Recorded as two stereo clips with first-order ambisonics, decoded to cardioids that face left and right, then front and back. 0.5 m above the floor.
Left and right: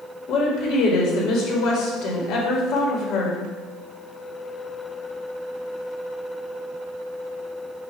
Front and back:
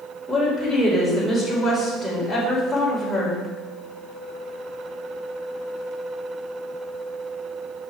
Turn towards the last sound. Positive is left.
turn(degrees=90)